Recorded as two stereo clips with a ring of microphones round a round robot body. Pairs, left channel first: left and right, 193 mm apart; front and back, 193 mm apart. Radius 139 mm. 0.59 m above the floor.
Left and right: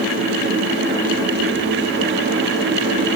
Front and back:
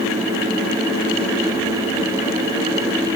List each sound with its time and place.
Only background noise.